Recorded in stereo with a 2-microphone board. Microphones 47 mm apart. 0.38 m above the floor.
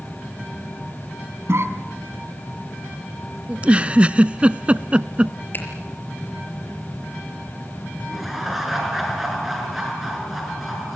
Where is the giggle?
25° right (ahead or behind), 0.5 m.